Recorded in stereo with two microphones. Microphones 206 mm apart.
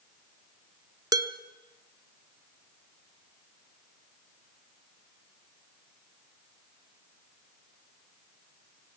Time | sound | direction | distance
1.1 | dishes clattering | 15° right (ahead or behind) | 0.9 m